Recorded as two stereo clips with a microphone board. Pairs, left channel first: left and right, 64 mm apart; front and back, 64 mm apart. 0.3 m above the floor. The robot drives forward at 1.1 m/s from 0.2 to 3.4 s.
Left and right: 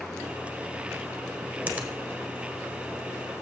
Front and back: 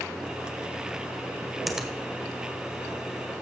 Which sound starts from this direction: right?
A finger snap, at 1.7 s.